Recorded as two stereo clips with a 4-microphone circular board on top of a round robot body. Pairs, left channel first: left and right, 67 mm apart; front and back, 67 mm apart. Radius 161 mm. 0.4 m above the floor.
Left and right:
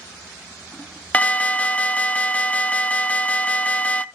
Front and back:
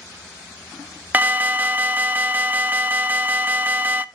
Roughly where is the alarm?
Behind left.